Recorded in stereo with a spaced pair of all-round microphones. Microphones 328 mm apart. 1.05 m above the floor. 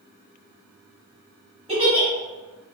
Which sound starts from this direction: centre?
A giggle, at 1.7 s.